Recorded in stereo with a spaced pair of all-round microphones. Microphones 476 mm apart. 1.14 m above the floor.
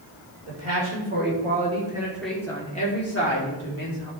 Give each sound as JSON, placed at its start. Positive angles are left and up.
{"t": 0.5, "sound": "a man speaking", "side_deg": -35, "distance_m": 4.0}